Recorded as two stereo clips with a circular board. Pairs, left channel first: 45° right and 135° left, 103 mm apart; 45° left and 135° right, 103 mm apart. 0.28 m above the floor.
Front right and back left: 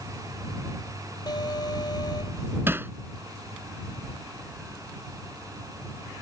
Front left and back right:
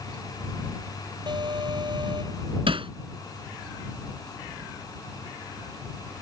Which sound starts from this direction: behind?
Hammering, at 2.7 s.